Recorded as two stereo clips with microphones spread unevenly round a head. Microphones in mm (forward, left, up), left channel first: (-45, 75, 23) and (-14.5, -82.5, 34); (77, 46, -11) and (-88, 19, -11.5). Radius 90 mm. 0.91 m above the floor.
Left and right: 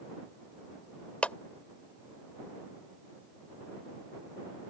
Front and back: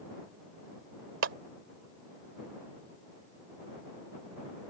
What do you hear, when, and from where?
1.2 s a clap: 175° right